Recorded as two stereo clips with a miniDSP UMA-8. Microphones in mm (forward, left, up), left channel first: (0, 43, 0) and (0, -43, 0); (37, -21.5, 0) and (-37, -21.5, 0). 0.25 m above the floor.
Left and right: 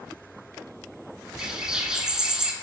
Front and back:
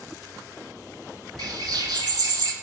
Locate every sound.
1.4 s a bird: 170° right, 0.5 m